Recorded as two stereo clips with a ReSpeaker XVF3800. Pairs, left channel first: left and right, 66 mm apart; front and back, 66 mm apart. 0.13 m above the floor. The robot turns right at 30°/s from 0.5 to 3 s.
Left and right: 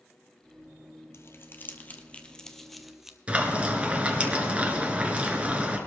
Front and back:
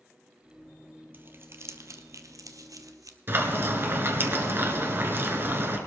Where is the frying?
150° right, 1.4 m.